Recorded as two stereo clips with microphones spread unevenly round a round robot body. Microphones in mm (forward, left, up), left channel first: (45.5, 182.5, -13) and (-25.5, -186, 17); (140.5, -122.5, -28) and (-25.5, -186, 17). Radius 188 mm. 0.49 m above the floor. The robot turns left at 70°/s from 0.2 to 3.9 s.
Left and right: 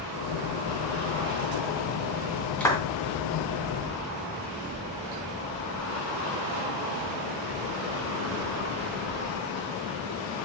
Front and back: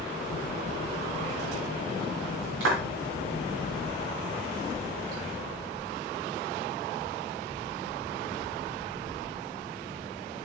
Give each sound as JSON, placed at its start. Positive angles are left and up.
{"t": 2.6, "sound": "a clap", "azimuth_deg": 165, "distance_m": 3.0}